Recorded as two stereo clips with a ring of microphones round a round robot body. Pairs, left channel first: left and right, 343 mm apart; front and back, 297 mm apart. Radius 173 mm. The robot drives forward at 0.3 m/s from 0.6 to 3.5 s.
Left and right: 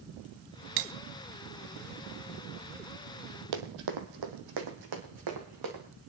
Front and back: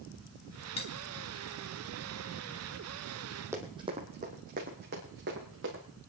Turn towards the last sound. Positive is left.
turn(degrees=-120)